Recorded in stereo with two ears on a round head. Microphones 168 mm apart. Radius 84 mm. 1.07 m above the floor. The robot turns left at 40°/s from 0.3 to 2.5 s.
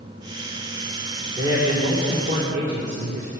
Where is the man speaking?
15° right, 2.5 m; by 3.3 s 65° right, 2.5 m.